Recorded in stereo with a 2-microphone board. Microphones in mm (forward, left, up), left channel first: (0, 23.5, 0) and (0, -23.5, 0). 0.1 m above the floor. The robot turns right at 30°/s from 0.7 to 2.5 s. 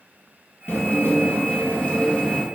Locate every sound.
0.7 s dishes clattering: 100° left, 1.5 m; by 2.5 s 155° left, 1.5 m